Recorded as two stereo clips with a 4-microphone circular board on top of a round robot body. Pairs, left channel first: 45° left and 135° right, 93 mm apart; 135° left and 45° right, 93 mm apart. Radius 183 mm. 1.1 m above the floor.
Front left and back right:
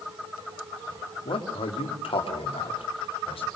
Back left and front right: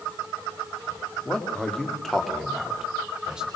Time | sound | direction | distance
1.2 | a man speaking | 55° left | 2.5 m